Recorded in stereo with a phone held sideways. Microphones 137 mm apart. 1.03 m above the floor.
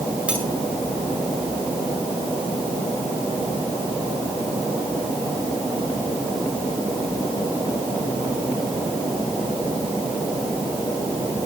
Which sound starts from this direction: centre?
Cutlery clinking, at 0.3 s.